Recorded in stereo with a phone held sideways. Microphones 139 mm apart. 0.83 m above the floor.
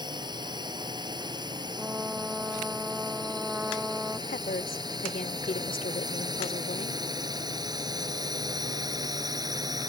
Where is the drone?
30° right (ahead or behind).